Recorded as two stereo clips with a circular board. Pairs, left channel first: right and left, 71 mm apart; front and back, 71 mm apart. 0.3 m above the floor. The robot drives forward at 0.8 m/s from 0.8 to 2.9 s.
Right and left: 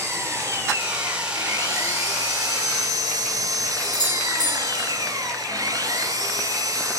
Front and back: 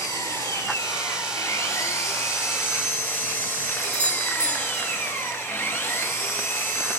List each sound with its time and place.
0.0 s an engine running: 35° left, 4 m; by 7.0 s 55° left, 3 m
3.8 s a doorbell: 70° right, 5.5 m